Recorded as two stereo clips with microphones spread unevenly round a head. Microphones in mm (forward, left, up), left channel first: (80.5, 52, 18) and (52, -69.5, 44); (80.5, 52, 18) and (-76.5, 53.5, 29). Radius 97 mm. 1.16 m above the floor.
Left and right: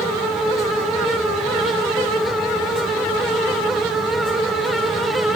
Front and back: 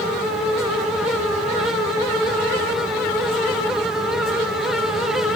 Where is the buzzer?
I don't hear a buzzer.